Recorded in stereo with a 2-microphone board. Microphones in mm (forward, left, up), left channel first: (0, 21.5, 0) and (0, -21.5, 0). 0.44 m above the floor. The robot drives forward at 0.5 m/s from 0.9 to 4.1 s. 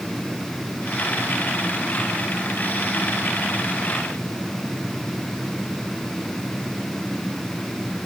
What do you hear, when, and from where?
Only background noise.